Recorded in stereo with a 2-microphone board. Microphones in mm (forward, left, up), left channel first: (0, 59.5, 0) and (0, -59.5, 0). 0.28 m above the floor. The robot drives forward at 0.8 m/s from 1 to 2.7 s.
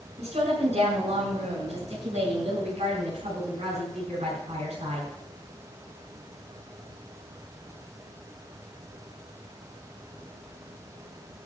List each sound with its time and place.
0.2 s a woman speaking: 65° right (ahead or behind), 4 m; by 5.1 s 70° right (ahead or behind), 4 m